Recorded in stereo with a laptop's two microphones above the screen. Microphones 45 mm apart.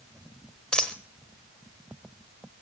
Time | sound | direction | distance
0.7 | a dropped coin | 20° left (ahead or behind) | 1.0 m